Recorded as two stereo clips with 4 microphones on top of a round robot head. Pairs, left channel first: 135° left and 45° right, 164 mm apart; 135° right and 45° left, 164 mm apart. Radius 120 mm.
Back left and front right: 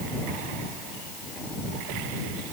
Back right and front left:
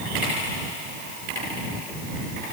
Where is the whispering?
I don't hear whispering.